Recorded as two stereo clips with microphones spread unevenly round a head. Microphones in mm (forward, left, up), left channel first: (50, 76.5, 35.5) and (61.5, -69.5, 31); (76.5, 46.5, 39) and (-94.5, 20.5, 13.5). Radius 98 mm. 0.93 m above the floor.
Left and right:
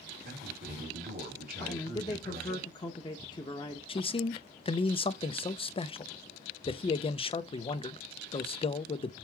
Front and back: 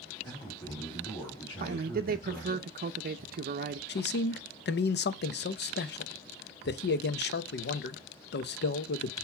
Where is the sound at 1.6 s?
160° left, 0.6 m.